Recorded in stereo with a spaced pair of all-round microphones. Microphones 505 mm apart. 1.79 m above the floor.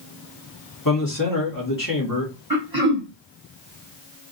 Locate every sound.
0.8 s a man speaking: 35° left (ahead or behind), 1.9 m
2.5 s throat clearing: 40° right (ahead or behind), 1.4 m